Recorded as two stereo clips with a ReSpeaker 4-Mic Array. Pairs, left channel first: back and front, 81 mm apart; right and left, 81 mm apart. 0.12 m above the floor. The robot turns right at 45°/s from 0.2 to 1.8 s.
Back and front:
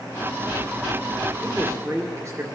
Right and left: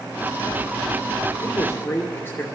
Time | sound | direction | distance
1.4 | a man speaking | 55° right | 2 m